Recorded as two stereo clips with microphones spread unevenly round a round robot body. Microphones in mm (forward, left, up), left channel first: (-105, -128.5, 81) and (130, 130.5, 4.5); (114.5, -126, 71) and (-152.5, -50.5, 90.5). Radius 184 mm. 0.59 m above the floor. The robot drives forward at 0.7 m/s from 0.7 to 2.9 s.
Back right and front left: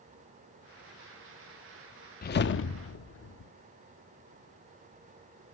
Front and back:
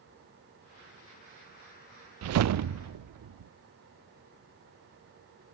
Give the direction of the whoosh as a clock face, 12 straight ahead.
7 o'clock.